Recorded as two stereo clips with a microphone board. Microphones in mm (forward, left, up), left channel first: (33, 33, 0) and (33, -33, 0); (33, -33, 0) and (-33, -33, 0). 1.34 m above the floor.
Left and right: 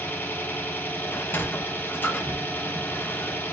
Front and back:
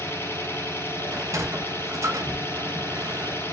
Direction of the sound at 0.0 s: 40° left.